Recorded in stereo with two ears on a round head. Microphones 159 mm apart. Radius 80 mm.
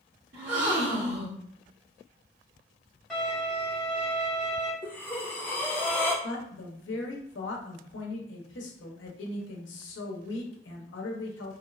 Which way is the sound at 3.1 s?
Centre (ahead or behind).